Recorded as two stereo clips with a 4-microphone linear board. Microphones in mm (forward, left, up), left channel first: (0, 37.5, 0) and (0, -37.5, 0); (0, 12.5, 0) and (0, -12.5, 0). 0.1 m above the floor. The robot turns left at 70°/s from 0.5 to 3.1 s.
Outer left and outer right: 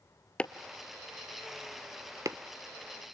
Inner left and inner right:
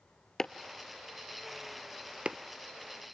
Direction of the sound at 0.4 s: 15° left (ahead or behind).